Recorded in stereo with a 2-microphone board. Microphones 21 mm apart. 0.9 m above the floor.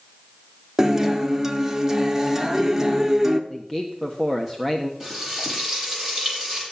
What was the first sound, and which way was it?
A guitar, 25° right (ahead or behind).